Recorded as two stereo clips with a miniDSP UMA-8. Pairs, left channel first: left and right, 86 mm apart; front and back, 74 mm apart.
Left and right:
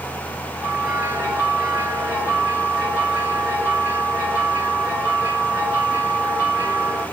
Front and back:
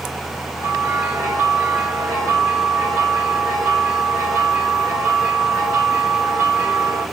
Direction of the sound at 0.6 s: 145° right.